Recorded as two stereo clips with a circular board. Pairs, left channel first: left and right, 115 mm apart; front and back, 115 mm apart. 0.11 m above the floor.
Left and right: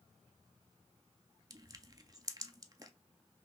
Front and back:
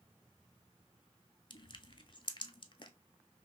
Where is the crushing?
40° right, 0.5 m.